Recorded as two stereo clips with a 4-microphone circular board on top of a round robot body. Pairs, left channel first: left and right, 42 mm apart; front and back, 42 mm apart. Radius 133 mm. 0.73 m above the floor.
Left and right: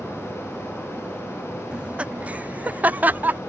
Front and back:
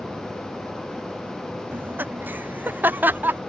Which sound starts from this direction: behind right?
Laughter, at 1.7 s.